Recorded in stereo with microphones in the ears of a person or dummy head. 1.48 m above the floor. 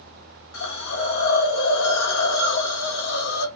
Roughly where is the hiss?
Left.